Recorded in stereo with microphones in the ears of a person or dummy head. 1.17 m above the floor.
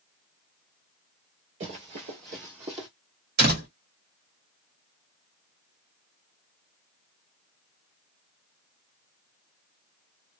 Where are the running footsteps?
35° right (ahead or behind), 1.3 m; by 2.9 s 25° right (ahead or behind), 1.4 m.